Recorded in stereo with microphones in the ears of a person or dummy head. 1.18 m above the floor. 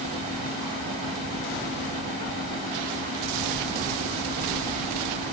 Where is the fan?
30° right (ahead or behind), 1.4 m.